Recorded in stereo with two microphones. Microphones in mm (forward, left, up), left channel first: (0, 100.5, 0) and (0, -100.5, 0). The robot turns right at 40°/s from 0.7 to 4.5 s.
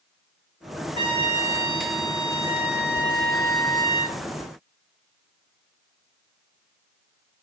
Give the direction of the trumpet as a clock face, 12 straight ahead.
5 o'clock.